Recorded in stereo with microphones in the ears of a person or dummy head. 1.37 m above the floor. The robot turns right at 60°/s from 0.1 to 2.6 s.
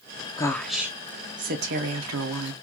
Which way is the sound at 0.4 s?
160° left.